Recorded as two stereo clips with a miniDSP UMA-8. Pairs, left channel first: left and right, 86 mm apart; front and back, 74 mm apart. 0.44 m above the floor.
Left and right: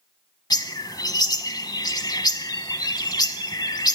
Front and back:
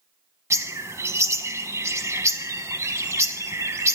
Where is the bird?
130° left, 1.1 m.